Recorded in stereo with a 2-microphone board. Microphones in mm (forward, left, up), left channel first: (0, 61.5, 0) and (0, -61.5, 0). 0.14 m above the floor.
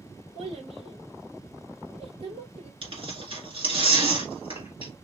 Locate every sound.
0.3 s a child speaking: 55° right (ahead or behind), 2.5 m
2.8 s tearing paper: 50° right (ahead or behind), 2 m